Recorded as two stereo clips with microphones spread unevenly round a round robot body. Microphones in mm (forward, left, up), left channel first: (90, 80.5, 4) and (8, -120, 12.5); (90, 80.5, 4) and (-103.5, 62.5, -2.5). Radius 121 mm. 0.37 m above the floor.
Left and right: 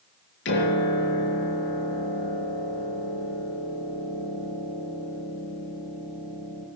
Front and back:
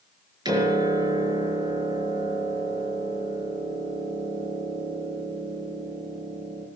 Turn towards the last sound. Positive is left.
turn(degrees=115)